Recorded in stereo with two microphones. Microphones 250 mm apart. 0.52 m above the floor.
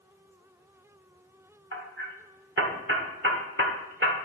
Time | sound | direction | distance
1.7 | hammering | 50° right (ahead or behind) | 1.4 m